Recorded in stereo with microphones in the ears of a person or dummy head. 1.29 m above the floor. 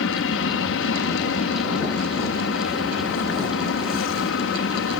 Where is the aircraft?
60° left (ahead or behind).